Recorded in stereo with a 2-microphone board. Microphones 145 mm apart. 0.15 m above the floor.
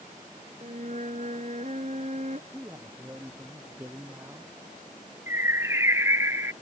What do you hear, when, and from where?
0.6 s a flute: 55° right (ahead or behind)
2.5 s a man speaking: 15° right (ahead or behind)
5.3 s a bird: 15° right (ahead or behind)